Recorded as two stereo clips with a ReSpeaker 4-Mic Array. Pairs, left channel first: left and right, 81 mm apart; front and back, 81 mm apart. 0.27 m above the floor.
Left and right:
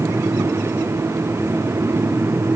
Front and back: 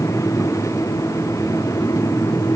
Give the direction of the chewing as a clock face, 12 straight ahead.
I don't hear chewing.